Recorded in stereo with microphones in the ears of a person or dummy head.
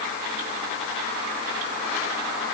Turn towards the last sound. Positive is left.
No sound to turn to.